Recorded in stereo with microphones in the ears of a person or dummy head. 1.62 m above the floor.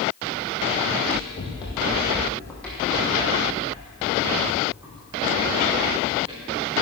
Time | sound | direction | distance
0.9 | running footsteps | 40° left (ahead or behind) | 4 m